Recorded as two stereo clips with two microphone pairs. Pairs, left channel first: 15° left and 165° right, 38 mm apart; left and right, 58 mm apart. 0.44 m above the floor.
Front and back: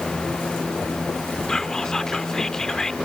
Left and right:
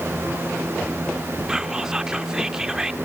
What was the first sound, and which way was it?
Whispering, 35° right.